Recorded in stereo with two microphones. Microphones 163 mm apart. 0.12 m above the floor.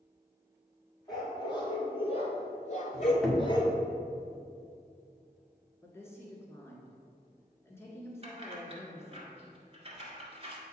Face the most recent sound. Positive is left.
turn(degrees=-35)  # may be behind; listen again after turning